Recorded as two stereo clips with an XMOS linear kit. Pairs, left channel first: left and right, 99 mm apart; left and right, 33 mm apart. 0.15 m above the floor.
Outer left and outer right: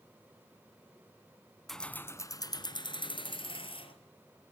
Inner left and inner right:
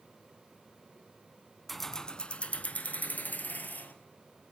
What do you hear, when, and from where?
1.7 s keys jangling: centre (ahead or behind), 0.9 m; by 3.9 s 65° left (ahead or behind), 2.5 m